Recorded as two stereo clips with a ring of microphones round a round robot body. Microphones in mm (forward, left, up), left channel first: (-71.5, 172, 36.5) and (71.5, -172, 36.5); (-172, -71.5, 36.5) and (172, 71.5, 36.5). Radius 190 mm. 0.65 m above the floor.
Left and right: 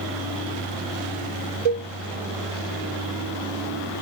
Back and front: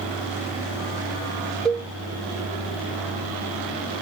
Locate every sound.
1.6 s a cowbell: 70° right, 1.5 m